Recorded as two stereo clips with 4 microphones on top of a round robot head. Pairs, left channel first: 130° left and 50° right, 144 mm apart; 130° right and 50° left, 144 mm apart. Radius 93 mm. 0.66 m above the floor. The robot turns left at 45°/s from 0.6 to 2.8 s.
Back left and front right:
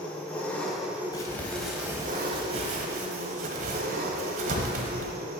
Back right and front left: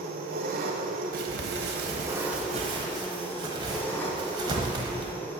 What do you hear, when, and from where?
0.0 s an engine running: 45° left, 1.2 m; by 5.4 s 50° right, 1.2 m
1.1 s crumpling: 60° left, 1.1 m; by 5.2 s 15° right, 1.1 m